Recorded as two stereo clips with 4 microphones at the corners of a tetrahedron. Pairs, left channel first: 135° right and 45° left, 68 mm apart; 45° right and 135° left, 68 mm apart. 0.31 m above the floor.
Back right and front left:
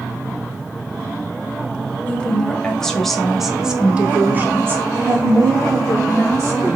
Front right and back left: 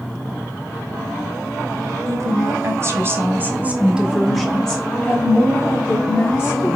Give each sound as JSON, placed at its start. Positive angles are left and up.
{"t": 2.1, "sound": "a woman speaking", "azimuth_deg": 155, "distance_m": 1.4}